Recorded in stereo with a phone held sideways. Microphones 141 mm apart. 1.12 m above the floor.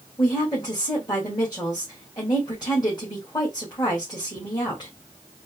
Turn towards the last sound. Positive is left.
turn(degrees=25)  # may be behind; listen again after turning